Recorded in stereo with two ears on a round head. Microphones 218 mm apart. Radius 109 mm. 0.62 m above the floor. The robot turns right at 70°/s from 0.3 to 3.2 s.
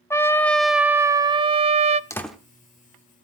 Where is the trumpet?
10° left (ahead or behind), 0.5 m; by 2.0 s 25° right (ahead or behind), 0.5 m.